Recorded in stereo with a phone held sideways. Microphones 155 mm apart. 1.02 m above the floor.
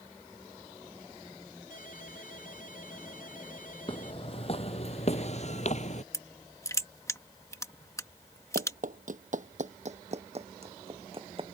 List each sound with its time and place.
1.7 s a ringtone: 60° left (ahead or behind)
3.9 s footsteps: 35° left (ahead or behind); by 6.0 s 50° left (ahead or behind)
6.1 s crushing: 20° left (ahead or behind)
8.6 s running footsteps: 60° right (ahead or behind); by 11.6 s 35° right (ahead or behind)